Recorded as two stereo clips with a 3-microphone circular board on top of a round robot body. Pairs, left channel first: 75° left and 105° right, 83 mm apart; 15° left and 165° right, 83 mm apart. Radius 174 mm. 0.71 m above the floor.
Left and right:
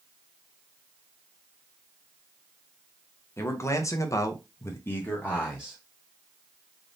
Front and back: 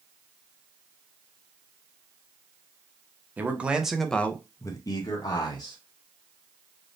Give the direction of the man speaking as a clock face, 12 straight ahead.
8 o'clock.